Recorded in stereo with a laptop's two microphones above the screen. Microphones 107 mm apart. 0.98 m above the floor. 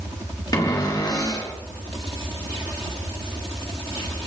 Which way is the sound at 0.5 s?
35° left (ahead or behind).